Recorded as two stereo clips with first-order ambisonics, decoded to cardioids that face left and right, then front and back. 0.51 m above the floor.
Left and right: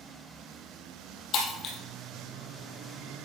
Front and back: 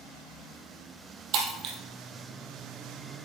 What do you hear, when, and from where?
1.3 s breaking glass: 140° left, 2.5 m